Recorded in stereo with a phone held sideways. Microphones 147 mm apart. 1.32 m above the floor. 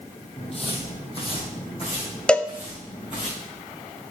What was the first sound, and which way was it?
Footsteps, 45° left (ahead or behind).